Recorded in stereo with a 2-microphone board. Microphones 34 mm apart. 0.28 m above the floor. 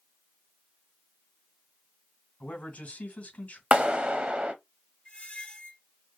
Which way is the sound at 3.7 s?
35° right (ahead or behind).